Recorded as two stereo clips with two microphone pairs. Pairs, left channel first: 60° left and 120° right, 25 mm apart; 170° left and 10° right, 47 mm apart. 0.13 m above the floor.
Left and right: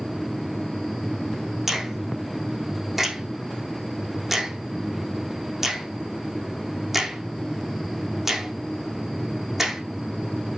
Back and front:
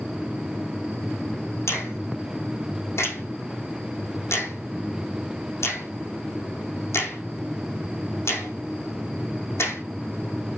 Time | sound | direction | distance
1.7 | a finger snap | 170° left | 4.5 m